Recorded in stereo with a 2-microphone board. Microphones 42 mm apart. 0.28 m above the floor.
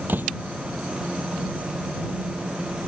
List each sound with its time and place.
0.1 s a door slam: 55° right (ahead or behind)